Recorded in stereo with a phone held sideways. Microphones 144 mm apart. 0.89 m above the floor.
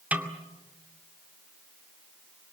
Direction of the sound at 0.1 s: 10° right (ahead or behind).